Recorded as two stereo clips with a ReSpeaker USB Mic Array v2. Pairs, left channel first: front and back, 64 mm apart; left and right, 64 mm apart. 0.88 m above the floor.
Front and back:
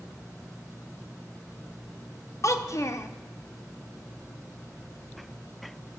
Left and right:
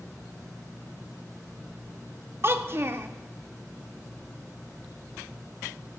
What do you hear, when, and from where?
2.4 s a child speaking: 40° right, 0.6 m